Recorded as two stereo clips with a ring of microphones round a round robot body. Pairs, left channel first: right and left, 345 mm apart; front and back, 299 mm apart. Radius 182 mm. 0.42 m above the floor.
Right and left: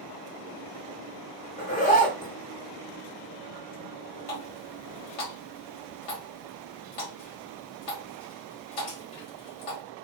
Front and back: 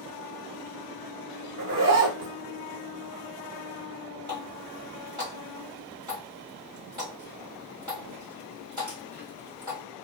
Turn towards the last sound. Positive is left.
turn(degrees=-100)